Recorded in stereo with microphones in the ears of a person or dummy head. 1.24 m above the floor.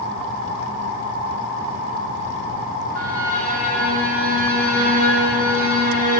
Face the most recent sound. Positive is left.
turn(degrees=-55)  # may be behind; listen again after turning